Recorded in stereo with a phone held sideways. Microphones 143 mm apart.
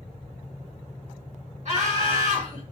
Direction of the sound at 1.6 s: 55° right (ahead or behind).